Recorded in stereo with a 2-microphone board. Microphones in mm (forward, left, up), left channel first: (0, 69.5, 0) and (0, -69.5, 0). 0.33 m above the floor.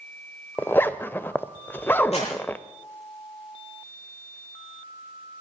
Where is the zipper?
15° left (ahead or behind), 0.6 m.